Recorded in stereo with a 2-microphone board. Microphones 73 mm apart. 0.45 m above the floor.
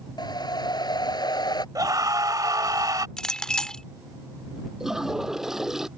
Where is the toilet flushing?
5° right (ahead or behind).